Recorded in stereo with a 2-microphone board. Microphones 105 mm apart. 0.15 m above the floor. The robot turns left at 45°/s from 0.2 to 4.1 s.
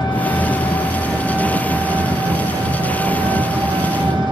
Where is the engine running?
45° left, 2 m; by 4.3 s 130° right, 2 m.